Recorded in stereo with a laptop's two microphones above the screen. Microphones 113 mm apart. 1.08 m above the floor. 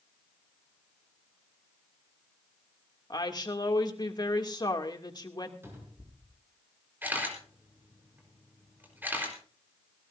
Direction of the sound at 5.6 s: 20° right (ahead or behind).